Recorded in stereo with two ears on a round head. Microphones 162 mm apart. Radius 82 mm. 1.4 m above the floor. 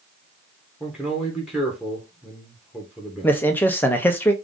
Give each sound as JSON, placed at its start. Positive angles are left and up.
{"t": 0.8, "sound": "a man speaking", "side_deg": -5, "distance_m": 1.3}
{"t": 3.2, "sound": "a man speaking", "side_deg": 10, "distance_m": 0.7}